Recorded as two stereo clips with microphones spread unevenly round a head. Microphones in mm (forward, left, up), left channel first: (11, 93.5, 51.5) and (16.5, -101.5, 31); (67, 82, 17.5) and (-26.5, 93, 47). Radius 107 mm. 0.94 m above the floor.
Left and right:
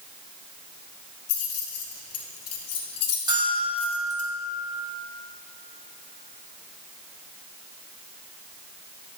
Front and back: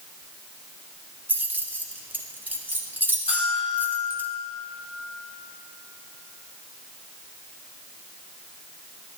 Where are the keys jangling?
100° left, 1.3 m.